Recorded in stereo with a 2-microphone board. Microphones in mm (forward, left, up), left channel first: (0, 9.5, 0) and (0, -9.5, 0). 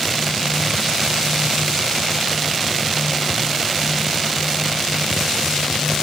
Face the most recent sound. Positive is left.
No sound to turn to.